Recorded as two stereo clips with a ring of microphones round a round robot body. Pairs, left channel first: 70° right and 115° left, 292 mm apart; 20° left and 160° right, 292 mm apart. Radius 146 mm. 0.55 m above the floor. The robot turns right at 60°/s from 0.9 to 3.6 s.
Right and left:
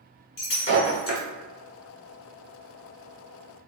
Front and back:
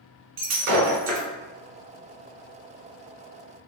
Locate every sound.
0.4 s breaking glass: 120° right, 1.2 m; by 1.3 s 100° right, 1.2 m